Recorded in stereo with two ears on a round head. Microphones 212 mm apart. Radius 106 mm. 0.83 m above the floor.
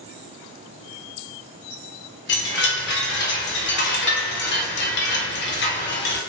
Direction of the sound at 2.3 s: 45° left (ahead or behind).